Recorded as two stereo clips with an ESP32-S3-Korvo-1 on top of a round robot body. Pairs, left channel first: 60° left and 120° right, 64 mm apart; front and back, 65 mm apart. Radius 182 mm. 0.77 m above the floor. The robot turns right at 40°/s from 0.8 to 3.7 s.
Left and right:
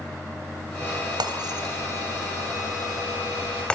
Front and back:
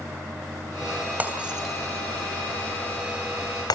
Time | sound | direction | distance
1.2 | breaking glass | 115° right | 3 m